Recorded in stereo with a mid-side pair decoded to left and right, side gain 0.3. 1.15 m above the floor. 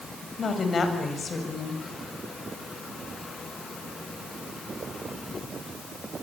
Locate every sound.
0.4 s a woman speaking: 60° left, 7 m